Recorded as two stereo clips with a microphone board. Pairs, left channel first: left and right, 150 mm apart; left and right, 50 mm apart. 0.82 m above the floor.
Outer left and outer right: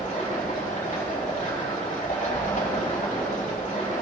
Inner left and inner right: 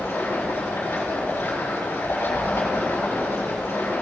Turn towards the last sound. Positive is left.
turn(degrees=55)  # may be behind; listen again after turning